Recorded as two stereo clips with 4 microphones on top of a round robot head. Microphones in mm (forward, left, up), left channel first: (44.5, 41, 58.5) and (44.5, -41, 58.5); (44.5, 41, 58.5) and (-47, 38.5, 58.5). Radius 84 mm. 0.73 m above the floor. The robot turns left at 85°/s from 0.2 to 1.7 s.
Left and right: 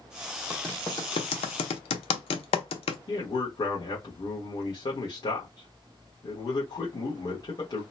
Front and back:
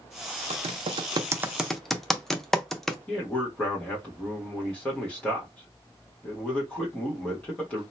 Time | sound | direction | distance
0.5 | typing on a keyboard | 170° right | 0.6 m
3.1 | a man speaking | 75° left | 1.3 m